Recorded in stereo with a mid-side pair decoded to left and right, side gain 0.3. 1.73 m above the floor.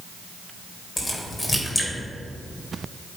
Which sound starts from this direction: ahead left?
A crack, at 1.0 s.